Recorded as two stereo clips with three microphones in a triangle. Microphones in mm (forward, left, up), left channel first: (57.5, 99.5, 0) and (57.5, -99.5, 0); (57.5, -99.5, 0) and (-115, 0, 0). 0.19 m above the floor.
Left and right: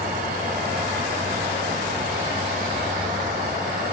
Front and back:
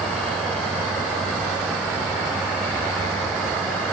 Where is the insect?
115° right, 0.9 m.